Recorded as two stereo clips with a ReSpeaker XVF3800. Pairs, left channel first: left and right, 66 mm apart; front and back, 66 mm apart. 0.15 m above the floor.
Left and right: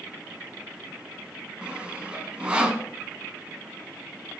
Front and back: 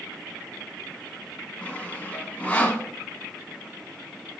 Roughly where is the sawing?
Ahead right.